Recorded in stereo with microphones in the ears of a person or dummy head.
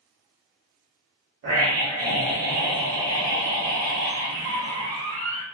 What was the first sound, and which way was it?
A scream, 50° right (ahead or behind).